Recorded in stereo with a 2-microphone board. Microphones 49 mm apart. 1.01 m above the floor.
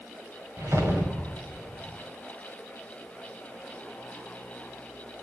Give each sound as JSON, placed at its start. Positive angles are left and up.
{"t": 0.6, "sound": "a whoosh", "side_deg": -65, "distance_m": 5.5}